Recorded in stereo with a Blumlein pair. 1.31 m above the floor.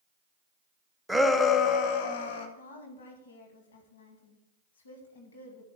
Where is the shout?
Straight ahead, 0.7 m; by 2.5 s 55° left, 1.4 m.